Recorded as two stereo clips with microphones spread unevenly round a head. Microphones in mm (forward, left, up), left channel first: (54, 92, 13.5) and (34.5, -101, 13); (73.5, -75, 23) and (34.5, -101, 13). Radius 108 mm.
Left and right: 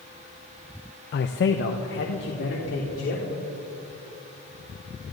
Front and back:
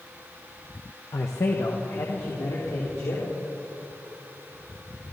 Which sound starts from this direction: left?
A man speaking, at 1.1 s.